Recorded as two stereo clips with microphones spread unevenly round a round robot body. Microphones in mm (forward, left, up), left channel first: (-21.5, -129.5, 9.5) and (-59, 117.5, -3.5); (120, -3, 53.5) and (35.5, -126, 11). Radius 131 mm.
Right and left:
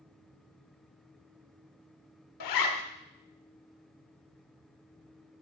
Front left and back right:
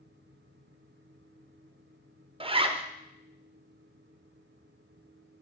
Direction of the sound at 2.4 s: 75° right.